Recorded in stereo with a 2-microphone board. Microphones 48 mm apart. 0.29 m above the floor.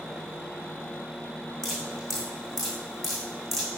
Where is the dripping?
5° left (ahead or behind), 5.5 m.